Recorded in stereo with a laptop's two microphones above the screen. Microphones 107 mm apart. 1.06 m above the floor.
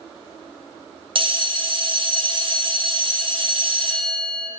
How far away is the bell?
About 0.6 m.